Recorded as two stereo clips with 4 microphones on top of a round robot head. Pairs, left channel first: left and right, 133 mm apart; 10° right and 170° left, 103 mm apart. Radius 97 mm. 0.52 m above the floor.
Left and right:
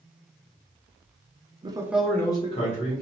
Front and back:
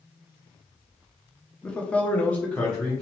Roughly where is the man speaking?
Right.